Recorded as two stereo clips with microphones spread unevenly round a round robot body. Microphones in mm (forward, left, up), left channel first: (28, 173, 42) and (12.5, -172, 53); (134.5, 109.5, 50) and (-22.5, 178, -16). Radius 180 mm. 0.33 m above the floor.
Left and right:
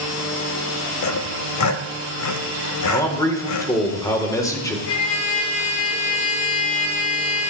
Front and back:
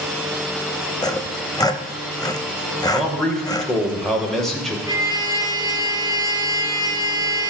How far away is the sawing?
About 1.0 m.